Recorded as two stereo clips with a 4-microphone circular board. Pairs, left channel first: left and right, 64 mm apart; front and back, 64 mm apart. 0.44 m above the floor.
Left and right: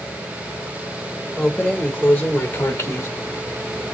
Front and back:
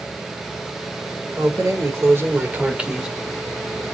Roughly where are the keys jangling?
Behind.